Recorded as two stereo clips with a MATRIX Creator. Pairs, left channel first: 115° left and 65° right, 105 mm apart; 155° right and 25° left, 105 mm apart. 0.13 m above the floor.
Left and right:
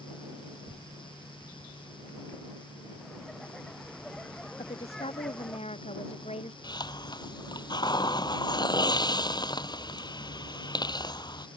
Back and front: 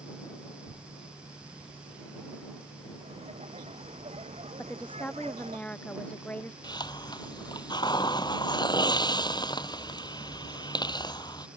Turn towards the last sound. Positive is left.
turn(degrees=160)